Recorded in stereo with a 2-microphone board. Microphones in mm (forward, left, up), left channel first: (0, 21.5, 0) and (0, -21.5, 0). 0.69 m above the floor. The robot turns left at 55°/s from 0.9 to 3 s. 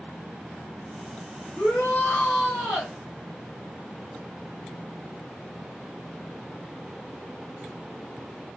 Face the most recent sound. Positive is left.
turn(degrees=-5)